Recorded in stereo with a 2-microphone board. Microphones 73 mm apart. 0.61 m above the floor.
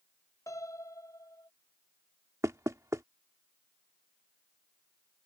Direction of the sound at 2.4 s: 45° right (ahead or behind).